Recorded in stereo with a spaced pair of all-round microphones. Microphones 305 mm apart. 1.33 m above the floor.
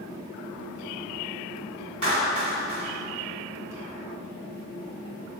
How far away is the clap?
About 4 m.